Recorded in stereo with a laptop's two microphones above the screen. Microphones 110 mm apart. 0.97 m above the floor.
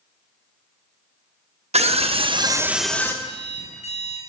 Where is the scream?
70° right (ahead or behind), 1.1 m; by 3.1 s 25° left (ahead or behind), 0.7 m.